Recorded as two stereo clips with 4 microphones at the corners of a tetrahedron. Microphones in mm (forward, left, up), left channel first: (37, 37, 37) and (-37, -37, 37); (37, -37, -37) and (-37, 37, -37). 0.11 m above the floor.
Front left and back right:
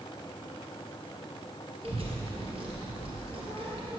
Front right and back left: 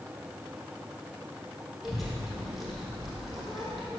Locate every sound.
1.8 s a child speaking: 135° right, 2 m